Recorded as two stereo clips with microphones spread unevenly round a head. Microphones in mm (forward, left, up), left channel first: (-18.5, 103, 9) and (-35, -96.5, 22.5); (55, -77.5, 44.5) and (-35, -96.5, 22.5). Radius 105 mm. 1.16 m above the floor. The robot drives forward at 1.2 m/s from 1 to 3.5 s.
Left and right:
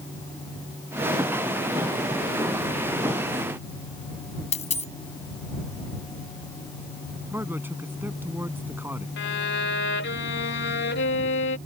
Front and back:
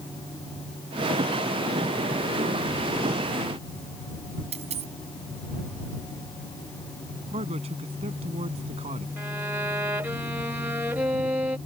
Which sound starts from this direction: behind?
A man speaking, at 7.3 s.